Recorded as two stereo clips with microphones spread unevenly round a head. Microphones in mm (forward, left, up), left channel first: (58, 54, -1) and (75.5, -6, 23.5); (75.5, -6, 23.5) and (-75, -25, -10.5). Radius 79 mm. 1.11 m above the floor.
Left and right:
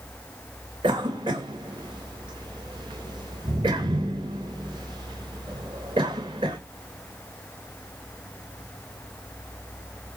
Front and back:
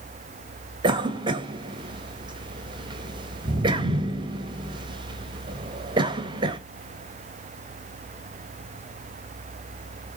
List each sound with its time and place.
0.8 s a cough: 115° right, 1.8 m